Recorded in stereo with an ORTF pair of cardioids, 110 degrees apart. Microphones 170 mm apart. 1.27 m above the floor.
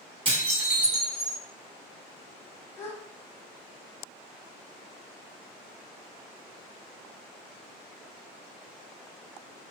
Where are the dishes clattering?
30° right, 1.5 m.